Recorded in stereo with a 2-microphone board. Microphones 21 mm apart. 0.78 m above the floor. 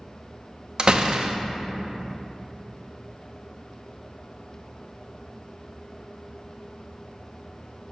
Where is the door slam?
50° right (ahead or behind), 0.7 m.